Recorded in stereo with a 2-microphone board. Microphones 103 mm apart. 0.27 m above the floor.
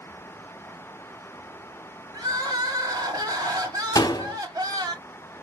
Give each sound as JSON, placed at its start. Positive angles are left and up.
{"t": 2.1, "sound": "crying", "side_deg": -40, "distance_m": 1.5}
{"t": 4.0, "sound": "a door slam", "side_deg": 35, "distance_m": 0.8}